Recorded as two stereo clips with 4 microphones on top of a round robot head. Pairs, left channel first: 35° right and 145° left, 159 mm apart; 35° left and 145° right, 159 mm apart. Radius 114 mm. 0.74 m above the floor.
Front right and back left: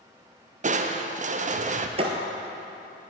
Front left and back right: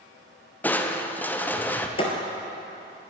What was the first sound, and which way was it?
Crushing, 115° left.